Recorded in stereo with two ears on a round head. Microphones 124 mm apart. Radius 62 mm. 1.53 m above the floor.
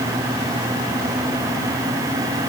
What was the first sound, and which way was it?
Only background noise.